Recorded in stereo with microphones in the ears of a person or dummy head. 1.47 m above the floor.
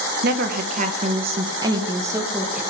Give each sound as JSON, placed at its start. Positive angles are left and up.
{"t": 0.2, "sound": "a woman speaking", "side_deg": -55, "distance_m": 1.6}